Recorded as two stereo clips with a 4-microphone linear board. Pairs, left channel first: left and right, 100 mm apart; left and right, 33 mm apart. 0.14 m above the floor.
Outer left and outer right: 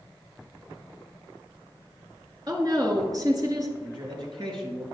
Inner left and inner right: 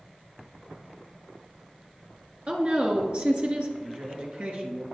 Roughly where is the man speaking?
Right.